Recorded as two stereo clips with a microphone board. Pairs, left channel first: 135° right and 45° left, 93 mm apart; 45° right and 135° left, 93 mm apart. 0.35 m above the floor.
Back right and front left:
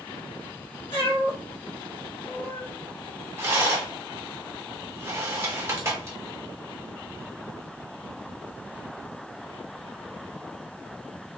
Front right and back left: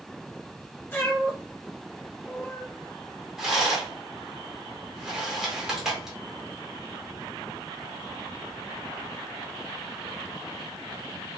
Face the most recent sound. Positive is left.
turn(degrees=55)